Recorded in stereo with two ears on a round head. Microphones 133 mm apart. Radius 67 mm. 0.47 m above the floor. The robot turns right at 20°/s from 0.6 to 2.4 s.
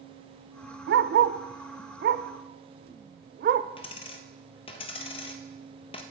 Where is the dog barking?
85° right, 0.5 m; by 3.7 s 60° right (ahead or behind), 0.5 m.